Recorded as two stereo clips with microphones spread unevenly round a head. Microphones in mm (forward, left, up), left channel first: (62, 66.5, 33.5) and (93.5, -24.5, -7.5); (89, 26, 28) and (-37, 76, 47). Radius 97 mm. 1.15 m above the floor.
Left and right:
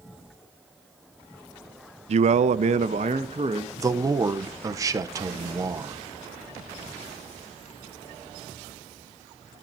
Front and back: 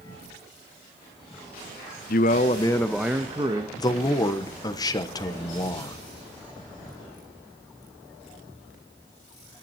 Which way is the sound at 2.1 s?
55° right.